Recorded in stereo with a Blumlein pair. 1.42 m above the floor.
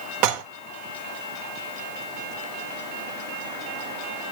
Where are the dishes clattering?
45° right, 1.1 m.